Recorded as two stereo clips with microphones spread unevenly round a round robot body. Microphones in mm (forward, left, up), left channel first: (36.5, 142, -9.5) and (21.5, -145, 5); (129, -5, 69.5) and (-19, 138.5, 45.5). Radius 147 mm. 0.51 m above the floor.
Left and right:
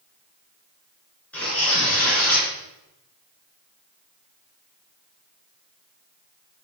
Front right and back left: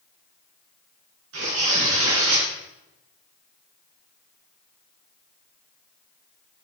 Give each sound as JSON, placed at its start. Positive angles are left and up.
{"t": 1.3, "sound": "tearing paper", "azimuth_deg": 170, "distance_m": 3.5}